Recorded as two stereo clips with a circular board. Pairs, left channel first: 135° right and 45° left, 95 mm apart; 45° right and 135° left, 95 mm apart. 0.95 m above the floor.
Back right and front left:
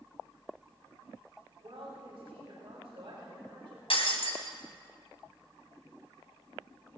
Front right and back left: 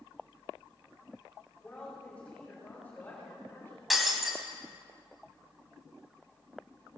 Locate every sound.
1.6 s a woman speaking: 35° left, 4.5 m; by 3.8 s 20° left, 3.5 m
3.9 s breaking glass: 135° right, 2 m